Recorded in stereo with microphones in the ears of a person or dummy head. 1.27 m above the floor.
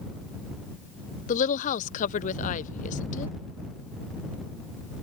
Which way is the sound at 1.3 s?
40° left (ahead or behind).